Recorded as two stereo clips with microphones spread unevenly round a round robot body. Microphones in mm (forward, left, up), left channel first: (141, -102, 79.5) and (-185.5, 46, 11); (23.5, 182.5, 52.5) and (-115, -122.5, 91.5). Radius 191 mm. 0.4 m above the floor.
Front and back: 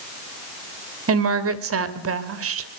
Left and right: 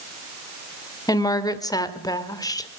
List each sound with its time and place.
1.1 s a woman speaking: 135° left, 2 m